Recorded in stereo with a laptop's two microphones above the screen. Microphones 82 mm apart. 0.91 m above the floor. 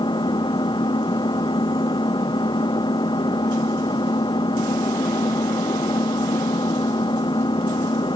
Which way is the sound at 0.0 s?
70° left (ahead or behind).